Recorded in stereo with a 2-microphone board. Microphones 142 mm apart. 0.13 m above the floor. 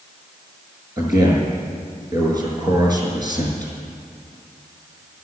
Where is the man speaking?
30° right (ahead or behind), 6 m.